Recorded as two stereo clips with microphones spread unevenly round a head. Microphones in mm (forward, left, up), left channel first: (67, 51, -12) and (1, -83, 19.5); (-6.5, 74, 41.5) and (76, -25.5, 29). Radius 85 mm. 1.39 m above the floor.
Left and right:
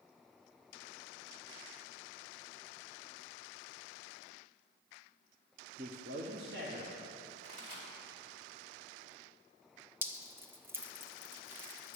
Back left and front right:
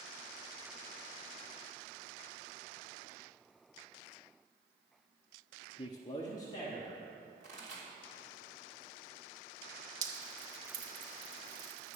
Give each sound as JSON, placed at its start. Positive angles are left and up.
{"t": 5.8, "sound": "a man speaking", "azimuth_deg": -175, "distance_m": 0.6}
{"t": 7.4, "sound": "a pop", "azimuth_deg": -95, "distance_m": 3.0}
{"t": 10.0, "sound": "dripping", "azimuth_deg": -65, "distance_m": 0.8}